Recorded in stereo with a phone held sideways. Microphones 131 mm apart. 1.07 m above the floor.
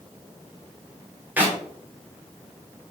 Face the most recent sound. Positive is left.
turn(degrees=-15)  # may be behind; listen again after turning